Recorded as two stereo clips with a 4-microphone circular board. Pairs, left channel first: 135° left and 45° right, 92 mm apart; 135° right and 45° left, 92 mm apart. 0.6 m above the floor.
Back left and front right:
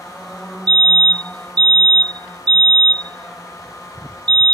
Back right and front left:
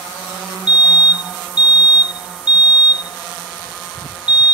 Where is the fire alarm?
30° right.